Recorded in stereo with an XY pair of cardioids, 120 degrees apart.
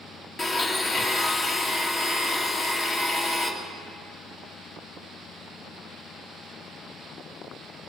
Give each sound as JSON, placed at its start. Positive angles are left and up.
{"t": 0.4, "sound": "a blender", "azimuth_deg": 35, "distance_m": 1.8}